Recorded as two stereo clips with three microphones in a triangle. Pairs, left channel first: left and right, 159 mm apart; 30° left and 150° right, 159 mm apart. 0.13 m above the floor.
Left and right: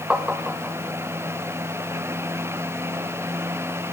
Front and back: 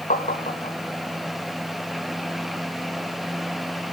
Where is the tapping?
5° right, 1.4 m.